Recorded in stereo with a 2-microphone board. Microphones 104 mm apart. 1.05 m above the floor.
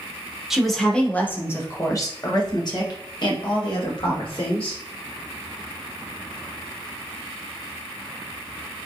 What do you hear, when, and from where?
0.5 s a woman speaking: 5° right (ahead or behind), 1.0 m; by 4.8 s 60° left (ahead or behind), 2.5 m